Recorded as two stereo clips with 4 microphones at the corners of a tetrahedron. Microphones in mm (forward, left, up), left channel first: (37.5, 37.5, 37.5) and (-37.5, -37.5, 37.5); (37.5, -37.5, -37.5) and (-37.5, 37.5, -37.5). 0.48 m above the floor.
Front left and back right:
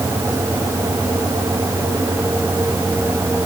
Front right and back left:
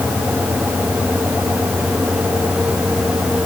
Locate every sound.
Only background noise.